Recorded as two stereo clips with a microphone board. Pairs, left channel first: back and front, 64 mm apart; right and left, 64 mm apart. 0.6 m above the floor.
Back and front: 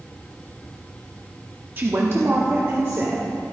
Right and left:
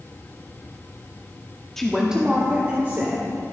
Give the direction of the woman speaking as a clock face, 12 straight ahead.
12 o'clock.